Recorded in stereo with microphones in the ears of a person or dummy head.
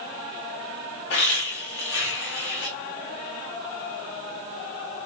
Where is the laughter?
55° left (ahead or behind), 4.5 m.